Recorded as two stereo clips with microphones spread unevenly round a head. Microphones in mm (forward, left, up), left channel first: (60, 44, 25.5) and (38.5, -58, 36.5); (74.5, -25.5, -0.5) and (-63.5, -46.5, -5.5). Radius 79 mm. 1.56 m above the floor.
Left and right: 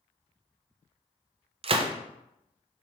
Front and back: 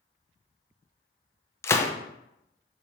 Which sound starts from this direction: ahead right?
A gunshot, at 1.6 s.